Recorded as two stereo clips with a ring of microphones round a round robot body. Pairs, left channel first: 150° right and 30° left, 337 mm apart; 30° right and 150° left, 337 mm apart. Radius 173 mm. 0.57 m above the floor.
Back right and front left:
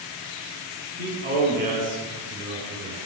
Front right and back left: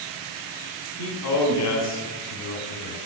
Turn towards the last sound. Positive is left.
turn(degrees=-25)